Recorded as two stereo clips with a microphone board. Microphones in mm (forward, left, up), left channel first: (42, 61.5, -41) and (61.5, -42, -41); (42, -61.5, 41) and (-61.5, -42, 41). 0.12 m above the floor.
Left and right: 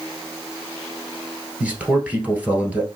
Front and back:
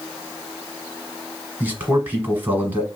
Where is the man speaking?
140° right, 1.3 m.